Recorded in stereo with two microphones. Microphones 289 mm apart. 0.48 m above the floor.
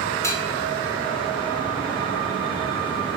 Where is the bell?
10° left (ahead or behind), 0.7 m.